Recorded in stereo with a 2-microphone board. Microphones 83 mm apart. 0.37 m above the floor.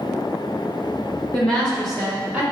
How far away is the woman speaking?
About 1.4 m.